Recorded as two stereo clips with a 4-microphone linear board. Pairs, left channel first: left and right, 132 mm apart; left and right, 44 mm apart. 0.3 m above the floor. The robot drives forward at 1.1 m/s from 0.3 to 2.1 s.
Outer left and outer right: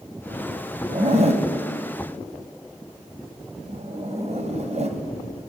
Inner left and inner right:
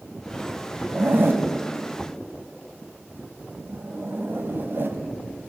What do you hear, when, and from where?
0.9 s a zipper: 45° right (ahead or behind), 2.5 m; by 5.0 s 50° right (ahead or behind), 2 m